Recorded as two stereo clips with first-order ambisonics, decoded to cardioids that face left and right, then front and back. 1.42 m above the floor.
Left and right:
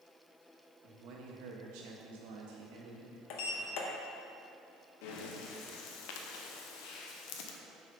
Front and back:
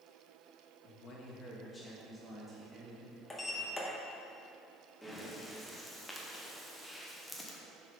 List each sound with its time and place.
0.8 s a man speaking: 45° right, 1.4 m; by 3.2 s 110° right, 2.0 m
3.3 s a sliding door: 80° left, 0.8 m
5.0 s breathing: 85° left, 0.8 m